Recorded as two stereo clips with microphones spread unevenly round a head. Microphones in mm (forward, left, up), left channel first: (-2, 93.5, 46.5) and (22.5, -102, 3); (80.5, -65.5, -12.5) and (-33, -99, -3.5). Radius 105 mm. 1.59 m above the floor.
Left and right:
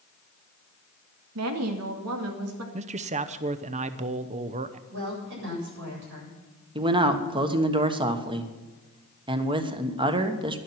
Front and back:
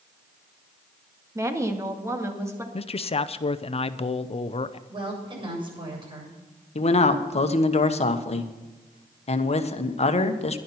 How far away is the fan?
No fan in this recording.